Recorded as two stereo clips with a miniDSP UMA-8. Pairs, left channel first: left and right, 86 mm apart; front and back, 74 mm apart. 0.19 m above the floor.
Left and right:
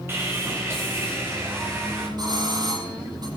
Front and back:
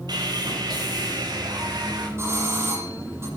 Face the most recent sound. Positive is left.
turn(degrees=-125)